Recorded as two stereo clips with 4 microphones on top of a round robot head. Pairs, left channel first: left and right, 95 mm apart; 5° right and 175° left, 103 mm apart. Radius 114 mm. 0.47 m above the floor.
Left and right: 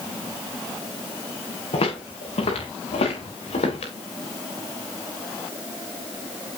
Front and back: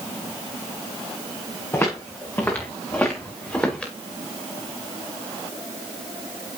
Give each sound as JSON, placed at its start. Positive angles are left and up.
{"t": 1.7, "sound": "footsteps", "azimuth_deg": 60, "distance_m": 4.0}